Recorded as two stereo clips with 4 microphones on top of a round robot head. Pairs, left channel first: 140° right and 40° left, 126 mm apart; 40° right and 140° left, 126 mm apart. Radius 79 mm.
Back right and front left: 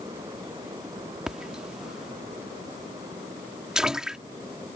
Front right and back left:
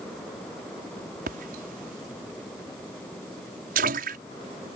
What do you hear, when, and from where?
1.3 s a splash: 125° left